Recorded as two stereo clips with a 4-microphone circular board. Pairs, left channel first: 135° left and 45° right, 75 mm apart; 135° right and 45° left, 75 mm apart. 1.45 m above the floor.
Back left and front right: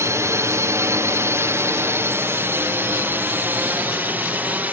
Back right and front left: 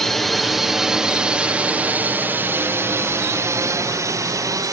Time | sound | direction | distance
0.0 | a drone | 50° right | ?